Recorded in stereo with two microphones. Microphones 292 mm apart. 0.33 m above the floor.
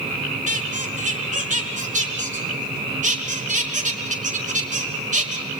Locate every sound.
0.5 s a squeak: 25° right (ahead or behind), 3 m